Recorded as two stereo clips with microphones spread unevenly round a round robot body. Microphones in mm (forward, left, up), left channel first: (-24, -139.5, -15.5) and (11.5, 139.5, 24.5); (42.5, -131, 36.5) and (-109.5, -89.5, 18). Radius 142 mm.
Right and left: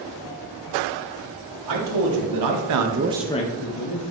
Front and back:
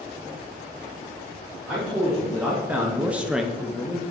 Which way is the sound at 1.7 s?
80° left.